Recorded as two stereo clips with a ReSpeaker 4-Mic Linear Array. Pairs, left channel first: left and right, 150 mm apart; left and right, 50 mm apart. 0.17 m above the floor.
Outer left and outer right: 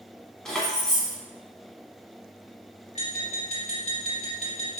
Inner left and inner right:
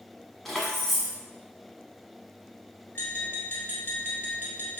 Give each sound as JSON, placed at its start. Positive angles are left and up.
{"t": 0.5, "sound": "keys jangling", "side_deg": 5, "distance_m": 0.8}
{"t": 3.0, "sound": "tapping", "side_deg": 45, "distance_m": 1.7}